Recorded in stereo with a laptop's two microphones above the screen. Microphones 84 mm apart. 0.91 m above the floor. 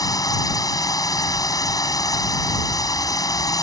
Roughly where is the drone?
Left.